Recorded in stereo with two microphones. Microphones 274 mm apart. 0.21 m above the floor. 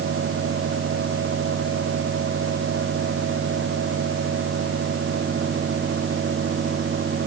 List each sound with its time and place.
Only background noise.